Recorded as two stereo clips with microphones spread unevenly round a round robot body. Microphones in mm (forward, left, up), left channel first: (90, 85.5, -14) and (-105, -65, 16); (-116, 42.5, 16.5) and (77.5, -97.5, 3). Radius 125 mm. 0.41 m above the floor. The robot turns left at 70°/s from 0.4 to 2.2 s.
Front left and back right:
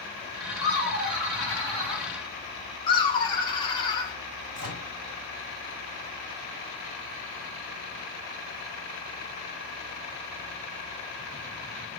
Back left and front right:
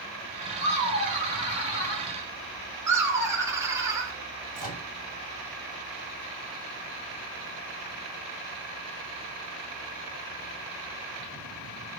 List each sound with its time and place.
0.6 s laughter: 145° right, 3 m; by 2.1 s 115° left, 3 m
2.9 s laughter: 20° left, 1.0 m
4.5 s a microwave: 160° right, 1.8 m